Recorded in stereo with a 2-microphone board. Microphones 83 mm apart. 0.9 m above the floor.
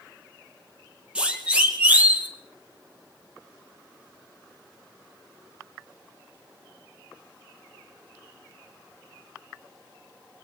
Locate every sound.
1.1 s a siren: 15° right (ahead or behind), 5 m; by 2.3 s 20° right (ahead or behind), 5.5 m